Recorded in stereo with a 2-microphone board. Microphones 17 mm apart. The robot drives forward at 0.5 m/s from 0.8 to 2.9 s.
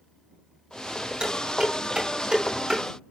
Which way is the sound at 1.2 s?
75° right (ahead or behind).